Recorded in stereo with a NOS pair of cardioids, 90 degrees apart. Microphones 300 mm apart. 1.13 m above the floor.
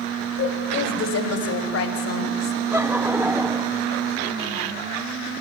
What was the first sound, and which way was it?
A woman speaking, 55° left.